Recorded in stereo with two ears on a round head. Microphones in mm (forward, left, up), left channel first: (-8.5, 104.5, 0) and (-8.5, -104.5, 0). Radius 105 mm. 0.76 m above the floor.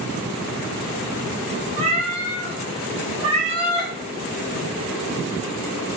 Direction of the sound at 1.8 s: 25° right (ahead or behind).